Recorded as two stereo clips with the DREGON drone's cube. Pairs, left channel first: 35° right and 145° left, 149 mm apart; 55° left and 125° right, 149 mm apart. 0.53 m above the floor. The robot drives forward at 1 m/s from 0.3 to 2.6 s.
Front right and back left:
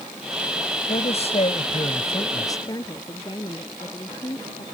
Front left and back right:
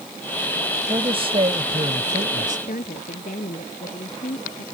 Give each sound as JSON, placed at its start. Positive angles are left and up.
{"t": 0.9, "sound": "a man speaking", "azimuth_deg": -70}
{"t": 2.7, "sound": "a woman speaking", "azimuth_deg": 30}